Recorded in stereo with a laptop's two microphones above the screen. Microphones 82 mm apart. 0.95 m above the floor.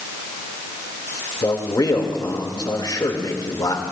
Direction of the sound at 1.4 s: 60° left (ahead or behind).